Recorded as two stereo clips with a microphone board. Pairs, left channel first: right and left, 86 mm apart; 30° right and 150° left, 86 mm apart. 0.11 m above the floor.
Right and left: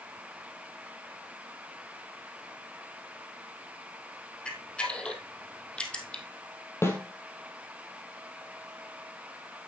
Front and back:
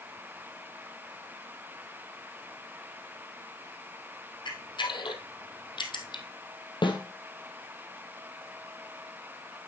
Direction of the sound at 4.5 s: 15° right.